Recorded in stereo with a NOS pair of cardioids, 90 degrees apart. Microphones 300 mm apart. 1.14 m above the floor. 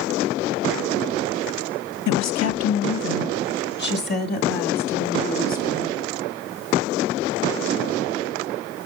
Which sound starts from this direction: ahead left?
A woman speaking, at 2.1 s.